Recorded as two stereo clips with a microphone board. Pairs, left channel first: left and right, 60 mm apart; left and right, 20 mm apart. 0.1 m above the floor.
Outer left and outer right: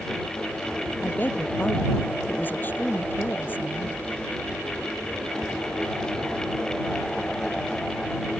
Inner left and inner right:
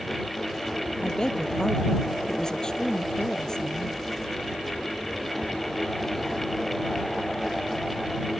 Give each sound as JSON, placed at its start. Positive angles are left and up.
{"t": 1.0, "sound": "a woman speaking", "side_deg": 35}